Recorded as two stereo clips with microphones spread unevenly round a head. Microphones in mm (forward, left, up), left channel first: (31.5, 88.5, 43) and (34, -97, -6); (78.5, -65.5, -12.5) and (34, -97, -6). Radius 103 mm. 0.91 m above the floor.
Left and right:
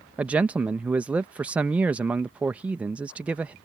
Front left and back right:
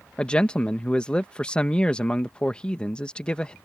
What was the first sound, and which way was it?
A man speaking, 25° right.